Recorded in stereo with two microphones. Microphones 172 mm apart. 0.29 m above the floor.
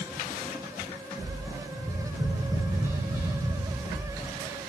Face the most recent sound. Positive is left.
turn(degrees=-15)  # may be behind; listen again after turning